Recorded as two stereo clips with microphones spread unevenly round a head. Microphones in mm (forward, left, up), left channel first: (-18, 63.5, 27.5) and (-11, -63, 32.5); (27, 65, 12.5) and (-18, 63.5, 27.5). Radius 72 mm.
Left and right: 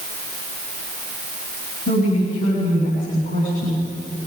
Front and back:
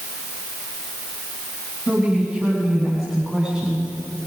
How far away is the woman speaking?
About 9 m.